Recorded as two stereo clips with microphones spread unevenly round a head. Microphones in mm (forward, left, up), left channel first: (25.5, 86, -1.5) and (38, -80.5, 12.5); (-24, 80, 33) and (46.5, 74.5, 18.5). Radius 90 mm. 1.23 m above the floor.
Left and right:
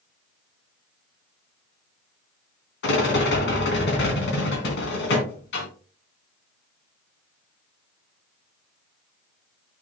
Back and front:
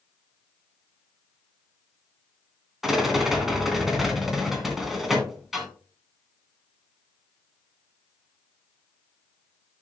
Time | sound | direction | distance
2.8 | a rattle | 85° left | 2.5 m